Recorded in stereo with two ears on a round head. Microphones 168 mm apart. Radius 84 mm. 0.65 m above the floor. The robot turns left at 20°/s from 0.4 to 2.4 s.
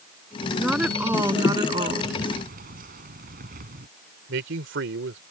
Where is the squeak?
I don't hear a squeak.